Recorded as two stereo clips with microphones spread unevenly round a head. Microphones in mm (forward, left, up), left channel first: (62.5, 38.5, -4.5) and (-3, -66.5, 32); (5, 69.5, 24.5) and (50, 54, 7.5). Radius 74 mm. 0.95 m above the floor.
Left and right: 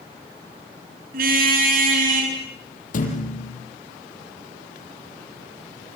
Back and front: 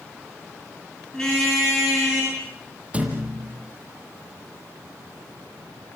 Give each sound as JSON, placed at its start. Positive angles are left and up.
{"t": 1.1, "sound": "a car horn", "azimuth_deg": -115, "distance_m": 8.0}
{"t": 2.9, "sound": "a thud", "azimuth_deg": 45, "distance_m": 7.5}